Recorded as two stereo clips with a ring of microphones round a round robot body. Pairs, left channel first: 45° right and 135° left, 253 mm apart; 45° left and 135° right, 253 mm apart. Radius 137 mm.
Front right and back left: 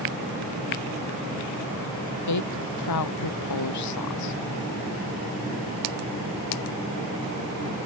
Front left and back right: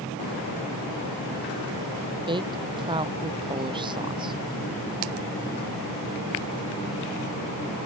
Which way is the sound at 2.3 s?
65° right.